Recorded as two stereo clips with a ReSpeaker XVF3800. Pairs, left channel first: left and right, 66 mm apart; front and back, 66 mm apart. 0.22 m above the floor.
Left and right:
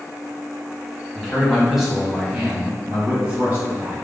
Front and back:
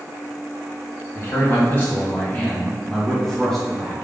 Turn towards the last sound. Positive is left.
turn(degrees=-95)